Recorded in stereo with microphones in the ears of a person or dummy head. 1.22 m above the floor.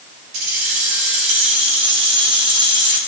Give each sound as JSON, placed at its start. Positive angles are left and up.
{"t": 0.3, "sound": "keys jangling", "side_deg": -55, "distance_m": 4.5}